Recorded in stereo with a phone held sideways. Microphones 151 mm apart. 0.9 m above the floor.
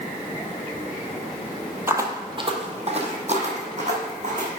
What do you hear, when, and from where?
1.9 s footsteps: 15° right (ahead or behind), 0.9 m; by 4.5 s 50° right (ahead or behind), 2.5 m